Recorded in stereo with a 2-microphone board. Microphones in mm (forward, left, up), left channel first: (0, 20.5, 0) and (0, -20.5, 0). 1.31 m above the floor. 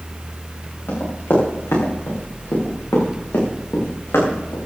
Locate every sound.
0.9 s running footsteps: 65° left (ahead or behind), 7.5 m; by 4.6 s 80° left, 6 m